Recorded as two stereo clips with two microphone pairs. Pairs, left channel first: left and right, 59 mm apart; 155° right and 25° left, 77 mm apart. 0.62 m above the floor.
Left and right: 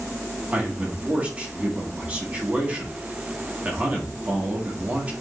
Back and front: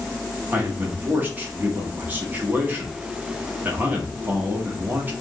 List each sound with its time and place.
0.5 s a man speaking: 35° right, 1.6 m